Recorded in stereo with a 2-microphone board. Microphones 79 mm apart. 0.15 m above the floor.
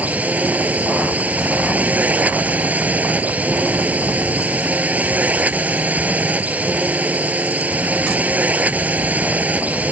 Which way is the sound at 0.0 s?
20° right (ahead or behind).